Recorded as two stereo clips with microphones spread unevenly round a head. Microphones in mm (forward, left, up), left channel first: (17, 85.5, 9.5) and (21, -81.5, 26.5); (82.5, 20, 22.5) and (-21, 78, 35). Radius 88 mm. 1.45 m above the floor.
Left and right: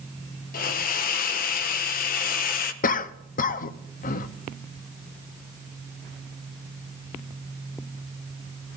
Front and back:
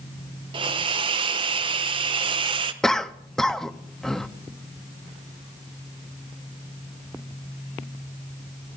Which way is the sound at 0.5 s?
125° left.